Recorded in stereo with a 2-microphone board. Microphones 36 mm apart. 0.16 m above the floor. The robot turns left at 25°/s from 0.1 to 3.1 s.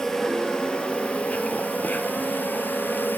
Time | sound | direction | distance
0.0 | an insect | 165° left | 1.9 m